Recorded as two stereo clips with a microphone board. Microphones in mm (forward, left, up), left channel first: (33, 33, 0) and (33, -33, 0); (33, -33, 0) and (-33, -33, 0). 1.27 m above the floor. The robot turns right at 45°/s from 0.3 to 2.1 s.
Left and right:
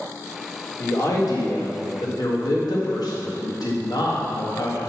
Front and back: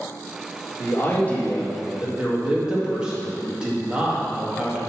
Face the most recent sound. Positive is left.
turn(degrees=105)